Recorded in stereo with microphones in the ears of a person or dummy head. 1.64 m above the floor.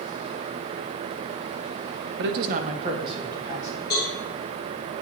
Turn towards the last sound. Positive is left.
turn(degrees=20)  # may be behind; listen again after turning